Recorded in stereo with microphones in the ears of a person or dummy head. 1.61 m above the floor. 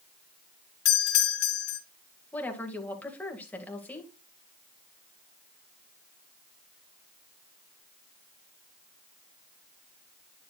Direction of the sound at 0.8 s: 70° left (ahead or behind).